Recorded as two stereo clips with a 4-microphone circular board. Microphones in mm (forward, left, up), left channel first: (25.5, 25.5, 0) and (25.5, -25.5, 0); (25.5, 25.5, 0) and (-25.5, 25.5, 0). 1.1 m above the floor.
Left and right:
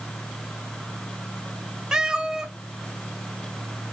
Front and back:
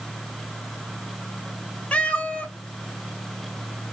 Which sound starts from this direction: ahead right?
A cat meowing, at 1.9 s.